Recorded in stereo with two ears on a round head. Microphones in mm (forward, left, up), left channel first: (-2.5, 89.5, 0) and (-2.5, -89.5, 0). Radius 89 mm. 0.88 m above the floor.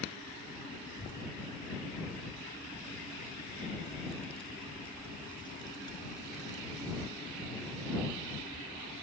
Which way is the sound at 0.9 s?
40° left (ahead or behind).